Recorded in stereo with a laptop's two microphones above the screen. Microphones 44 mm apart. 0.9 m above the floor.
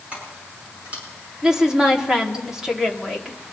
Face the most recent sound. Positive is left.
turn(degrees=-10)  # may be behind; listen again after turning